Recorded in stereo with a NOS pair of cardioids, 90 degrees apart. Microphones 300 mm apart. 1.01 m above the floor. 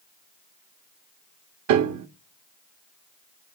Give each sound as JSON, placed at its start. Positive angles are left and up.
{"t": 1.7, "sound": "a piano", "azimuth_deg": -70, "distance_m": 1.0}